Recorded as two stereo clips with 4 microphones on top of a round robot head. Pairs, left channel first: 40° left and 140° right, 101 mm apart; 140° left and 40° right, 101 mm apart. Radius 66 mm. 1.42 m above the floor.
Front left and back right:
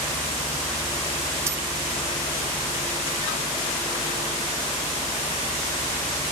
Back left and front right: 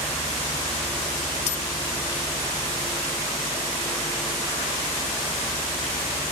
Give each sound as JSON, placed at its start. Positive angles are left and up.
{"t": 1.5, "sound": "keys jangling", "azimuth_deg": 155}